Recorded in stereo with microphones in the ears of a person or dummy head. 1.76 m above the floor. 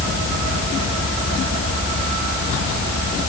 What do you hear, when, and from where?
Only background noise.